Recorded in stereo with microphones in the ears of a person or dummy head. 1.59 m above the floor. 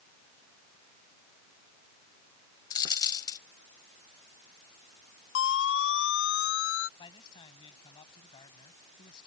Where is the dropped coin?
25° left (ahead or behind).